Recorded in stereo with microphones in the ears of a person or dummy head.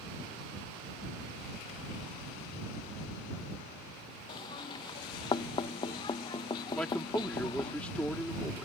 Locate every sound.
4.3 s knocking: 25° left (ahead or behind)
6.8 s a man speaking: 5° left (ahead or behind)